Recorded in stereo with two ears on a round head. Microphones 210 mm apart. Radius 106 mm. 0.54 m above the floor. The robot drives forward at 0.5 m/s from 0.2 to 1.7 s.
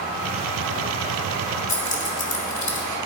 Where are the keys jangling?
35° left (ahead or behind), 1.6 m.